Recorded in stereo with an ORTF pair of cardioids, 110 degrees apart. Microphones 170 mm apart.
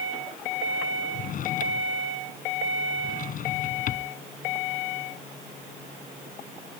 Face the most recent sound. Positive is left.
turn(degrees=55)